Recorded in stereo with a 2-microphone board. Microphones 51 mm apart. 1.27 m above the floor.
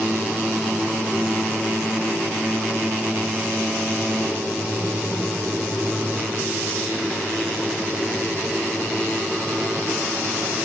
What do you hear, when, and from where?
Only background noise.